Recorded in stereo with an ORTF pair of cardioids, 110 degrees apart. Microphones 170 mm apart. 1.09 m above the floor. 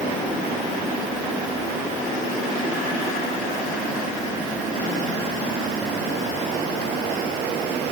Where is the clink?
No clink in this recording.